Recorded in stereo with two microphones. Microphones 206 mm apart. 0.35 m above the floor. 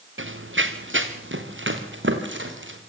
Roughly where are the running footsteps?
Right.